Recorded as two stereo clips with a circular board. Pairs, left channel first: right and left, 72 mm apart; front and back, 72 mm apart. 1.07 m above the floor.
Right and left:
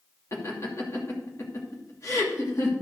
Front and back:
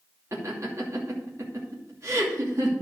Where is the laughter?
135° right, 2.5 m.